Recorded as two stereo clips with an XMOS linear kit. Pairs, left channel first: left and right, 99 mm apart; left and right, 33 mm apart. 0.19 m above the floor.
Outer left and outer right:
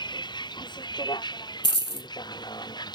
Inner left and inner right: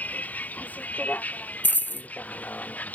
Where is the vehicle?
50° left (ahead or behind); by 3.0 s 45° left (ahead or behind).